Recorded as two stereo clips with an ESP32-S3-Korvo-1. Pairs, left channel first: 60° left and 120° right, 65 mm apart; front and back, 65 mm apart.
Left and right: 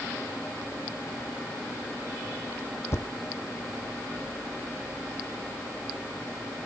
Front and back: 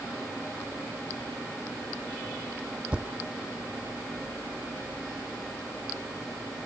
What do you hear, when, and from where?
2.9 s a thud: 105° left